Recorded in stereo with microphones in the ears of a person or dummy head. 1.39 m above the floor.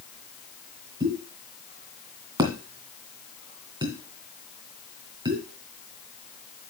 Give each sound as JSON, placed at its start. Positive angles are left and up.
{"t": 1.0, "sound": "a pop", "side_deg": -20, "distance_m": 2.5}